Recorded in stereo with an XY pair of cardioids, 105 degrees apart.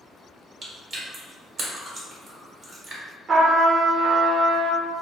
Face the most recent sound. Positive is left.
turn(degrees=-50)